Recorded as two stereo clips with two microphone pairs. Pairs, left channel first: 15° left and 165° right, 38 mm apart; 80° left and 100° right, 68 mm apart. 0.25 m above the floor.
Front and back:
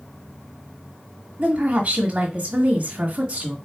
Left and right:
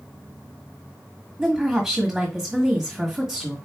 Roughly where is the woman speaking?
Behind.